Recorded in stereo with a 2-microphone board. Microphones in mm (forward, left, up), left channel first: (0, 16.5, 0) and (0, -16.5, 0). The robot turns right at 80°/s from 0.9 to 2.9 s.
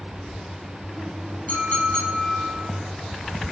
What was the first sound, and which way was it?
A clink, 55° left.